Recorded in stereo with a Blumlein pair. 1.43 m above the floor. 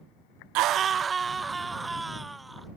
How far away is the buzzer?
No buzzer in this recording.